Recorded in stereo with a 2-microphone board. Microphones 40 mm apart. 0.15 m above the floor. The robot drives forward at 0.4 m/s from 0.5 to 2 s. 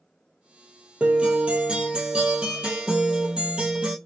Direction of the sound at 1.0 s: 35° right (ahead or behind).